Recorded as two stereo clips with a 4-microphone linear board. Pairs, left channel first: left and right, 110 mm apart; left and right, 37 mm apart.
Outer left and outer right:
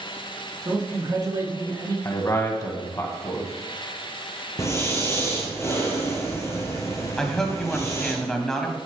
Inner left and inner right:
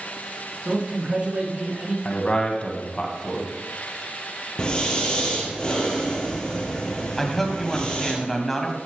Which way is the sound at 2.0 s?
30° left (ahead or behind).